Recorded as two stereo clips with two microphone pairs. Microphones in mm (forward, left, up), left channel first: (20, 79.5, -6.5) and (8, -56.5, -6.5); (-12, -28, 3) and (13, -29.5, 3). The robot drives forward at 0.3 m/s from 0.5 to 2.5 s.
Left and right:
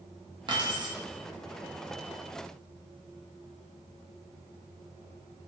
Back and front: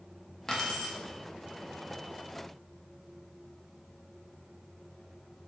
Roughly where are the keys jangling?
Behind right.